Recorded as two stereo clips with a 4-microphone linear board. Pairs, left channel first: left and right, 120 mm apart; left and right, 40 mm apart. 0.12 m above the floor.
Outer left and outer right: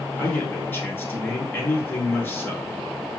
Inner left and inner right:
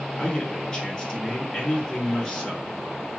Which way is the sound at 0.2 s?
20° left (ahead or behind).